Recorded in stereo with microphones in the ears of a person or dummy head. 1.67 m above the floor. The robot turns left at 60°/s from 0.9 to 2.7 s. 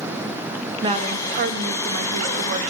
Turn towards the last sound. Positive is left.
turn(degrees=-140)